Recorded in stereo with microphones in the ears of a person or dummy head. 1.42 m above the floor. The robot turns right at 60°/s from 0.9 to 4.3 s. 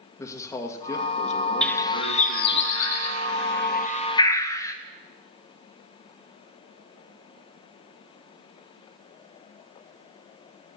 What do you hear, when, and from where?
0.2 s a man speaking: 15° left, 1.7 m; by 2.6 s 115° left, 1.7 m
1.6 s a bird: 5° left (ahead or behind), 1.0 m; by 4.8 s 15° left (ahead or behind), 1.0 m